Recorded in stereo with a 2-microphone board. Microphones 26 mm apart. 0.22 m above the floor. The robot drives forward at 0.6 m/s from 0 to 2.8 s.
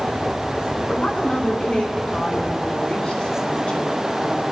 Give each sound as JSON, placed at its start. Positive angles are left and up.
{"t": 1.0, "sound": "a woman speaking", "side_deg": 50, "distance_m": 2.5}